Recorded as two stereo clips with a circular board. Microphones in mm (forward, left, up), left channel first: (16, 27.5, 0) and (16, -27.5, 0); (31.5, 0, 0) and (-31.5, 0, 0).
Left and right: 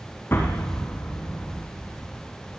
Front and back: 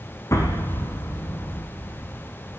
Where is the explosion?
40° left, 5.5 m.